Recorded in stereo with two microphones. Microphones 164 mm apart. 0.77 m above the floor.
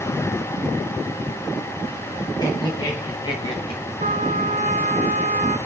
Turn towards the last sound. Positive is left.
turn(degrees=-50)  # may be behind; listen again after turning